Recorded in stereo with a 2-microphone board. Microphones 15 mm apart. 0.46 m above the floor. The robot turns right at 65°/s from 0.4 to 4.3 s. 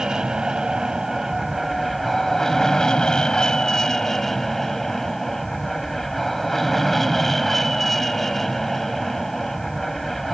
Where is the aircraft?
95° right; by 10.3 s 160° left.